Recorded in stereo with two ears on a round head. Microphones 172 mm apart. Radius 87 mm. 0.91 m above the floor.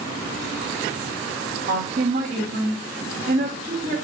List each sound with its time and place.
1.7 s a woman speaking: 45° right (ahead or behind), 1.5 m